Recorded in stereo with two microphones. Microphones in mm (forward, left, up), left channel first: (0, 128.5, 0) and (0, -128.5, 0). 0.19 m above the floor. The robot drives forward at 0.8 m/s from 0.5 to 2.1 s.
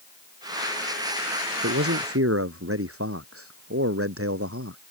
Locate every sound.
1.6 s a man speaking: 60° right (ahead or behind)